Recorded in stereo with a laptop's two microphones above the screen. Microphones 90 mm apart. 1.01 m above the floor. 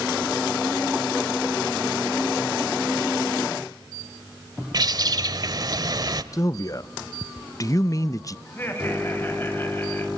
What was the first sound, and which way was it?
A bird, 45° right (ahead or behind).